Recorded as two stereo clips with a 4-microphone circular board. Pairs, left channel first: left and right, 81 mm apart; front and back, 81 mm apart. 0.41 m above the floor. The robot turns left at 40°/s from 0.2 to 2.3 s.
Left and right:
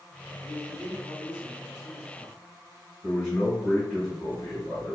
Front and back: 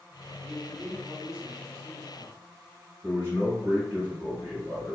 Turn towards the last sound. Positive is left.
turn(degrees=135)